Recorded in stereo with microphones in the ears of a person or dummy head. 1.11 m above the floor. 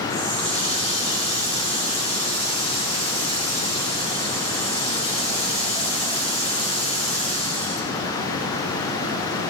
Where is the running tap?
30° left (ahead or behind), 1.9 m.